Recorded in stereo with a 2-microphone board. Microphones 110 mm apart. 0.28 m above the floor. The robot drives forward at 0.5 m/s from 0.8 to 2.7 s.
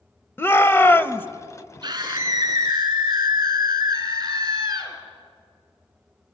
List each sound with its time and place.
0.4 s a shout: 20° left (ahead or behind), 0.9 m
1.8 s a scream: 35° right (ahead or behind), 4 m